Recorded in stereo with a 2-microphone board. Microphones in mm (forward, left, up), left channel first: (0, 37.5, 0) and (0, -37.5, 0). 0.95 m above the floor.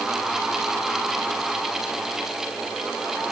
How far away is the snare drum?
I don't hear a snare drum.